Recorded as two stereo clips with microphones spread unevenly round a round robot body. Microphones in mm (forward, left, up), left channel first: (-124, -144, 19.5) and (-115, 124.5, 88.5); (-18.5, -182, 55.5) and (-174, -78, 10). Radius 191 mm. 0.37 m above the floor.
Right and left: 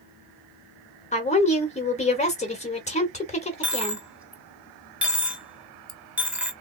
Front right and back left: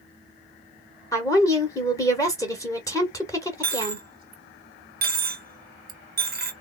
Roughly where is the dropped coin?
Behind.